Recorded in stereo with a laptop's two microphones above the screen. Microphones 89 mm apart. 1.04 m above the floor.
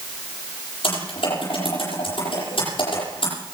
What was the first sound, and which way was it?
Typing on a keyboard, 85° left.